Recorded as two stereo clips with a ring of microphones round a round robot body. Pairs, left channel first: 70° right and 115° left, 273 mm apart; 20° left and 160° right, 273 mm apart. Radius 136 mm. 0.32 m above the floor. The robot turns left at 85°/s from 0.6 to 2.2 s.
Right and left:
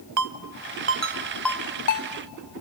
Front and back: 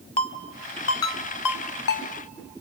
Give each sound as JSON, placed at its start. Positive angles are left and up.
{"t": 0.2, "sound": "a ringtone", "azimuth_deg": 90, "distance_m": 0.7}